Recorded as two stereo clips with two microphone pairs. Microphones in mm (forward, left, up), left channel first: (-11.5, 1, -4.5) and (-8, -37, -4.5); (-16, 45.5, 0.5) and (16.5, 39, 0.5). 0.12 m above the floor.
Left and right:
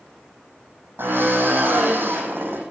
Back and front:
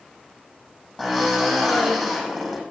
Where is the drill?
90° right, 6.5 m.